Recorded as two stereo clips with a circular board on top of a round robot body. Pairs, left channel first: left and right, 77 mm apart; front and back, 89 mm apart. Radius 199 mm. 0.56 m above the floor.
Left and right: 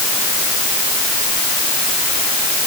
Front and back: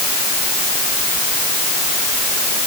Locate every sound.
Only background noise.